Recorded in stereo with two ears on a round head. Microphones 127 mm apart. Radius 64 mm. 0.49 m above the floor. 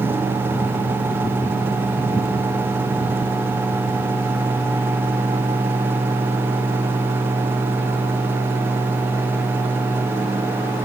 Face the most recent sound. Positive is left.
No sound to turn to.